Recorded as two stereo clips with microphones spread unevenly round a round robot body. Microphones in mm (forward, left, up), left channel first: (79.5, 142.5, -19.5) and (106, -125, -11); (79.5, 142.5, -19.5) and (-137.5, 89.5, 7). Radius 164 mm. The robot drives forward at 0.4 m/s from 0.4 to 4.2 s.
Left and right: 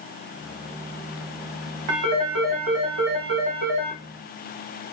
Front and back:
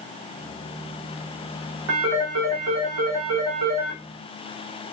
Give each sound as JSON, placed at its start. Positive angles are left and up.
{"t": 1.9, "sound": "a phone ringing", "azimuth_deg": -115, "distance_m": 0.7}